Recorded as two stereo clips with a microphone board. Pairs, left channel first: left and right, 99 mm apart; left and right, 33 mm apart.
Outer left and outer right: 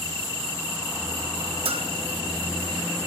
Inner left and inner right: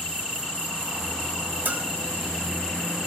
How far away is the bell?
About 0.5 m.